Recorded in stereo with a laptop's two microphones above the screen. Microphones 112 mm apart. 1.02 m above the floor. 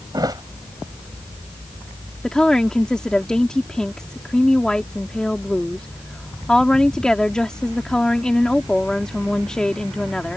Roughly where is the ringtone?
I don't hear a ringtone.